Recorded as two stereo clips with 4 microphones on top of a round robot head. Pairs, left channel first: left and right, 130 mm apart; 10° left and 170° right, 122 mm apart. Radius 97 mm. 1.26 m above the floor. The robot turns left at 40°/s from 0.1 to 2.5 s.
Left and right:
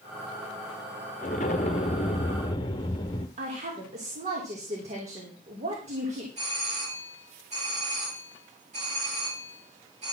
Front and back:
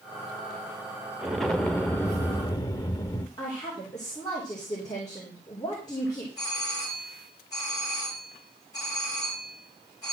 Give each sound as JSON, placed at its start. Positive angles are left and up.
{"t": 1.2, "sound": "an explosion", "azimuth_deg": 105, "distance_m": 0.8}
{"t": 3.4, "sound": "a woman speaking", "azimuth_deg": -55, "distance_m": 3.5}
{"t": 6.4, "sound": "a doorbell", "azimuth_deg": -55, "distance_m": 4.0}